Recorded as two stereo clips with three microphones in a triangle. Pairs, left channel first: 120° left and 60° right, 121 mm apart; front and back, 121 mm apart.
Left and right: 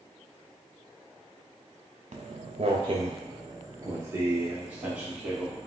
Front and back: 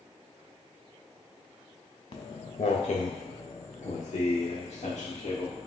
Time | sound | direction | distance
2.1 | footsteps | 35° right | 1.0 m